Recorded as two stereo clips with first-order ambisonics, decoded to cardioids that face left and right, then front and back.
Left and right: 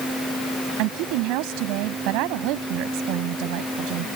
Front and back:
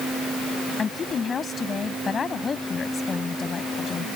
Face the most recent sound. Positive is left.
turn(degrees=-70)